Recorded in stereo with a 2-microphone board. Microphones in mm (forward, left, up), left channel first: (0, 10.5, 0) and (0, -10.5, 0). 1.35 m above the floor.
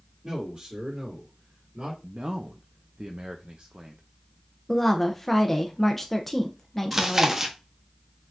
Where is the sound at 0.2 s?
50° right (ahead or behind), 2.5 m; by 1.9 s 70° right (ahead or behind), 2.5 m.